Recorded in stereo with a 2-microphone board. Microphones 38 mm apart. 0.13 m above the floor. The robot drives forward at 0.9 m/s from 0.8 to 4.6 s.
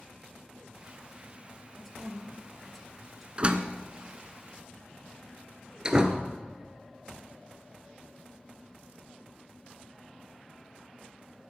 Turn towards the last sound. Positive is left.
turn(degrees=-20)  # may be behind; listen again after turning